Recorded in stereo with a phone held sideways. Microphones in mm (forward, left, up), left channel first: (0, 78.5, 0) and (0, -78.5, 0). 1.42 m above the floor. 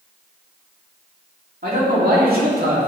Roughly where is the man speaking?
Right.